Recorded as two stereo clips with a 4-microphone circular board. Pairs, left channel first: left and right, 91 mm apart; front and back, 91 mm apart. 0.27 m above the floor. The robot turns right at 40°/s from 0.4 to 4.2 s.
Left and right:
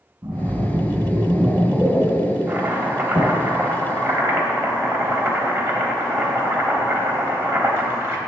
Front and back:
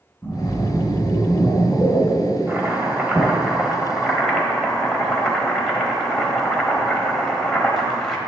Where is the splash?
45° right, 2.5 m; by 3.4 s 75° left, 2.5 m.